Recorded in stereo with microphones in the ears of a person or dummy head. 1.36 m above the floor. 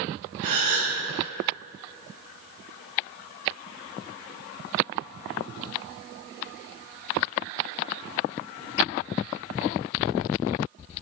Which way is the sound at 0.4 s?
45° right (ahead or behind).